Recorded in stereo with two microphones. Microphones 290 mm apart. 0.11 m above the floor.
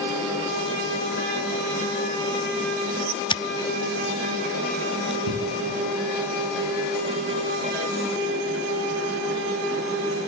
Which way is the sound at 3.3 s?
15° left (ahead or behind).